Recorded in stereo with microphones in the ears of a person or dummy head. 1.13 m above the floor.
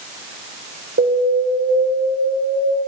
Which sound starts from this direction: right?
An alarm, at 1.0 s.